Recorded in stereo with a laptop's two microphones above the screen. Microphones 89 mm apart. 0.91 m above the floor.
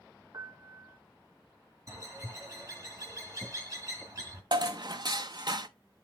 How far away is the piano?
About 0.7 m.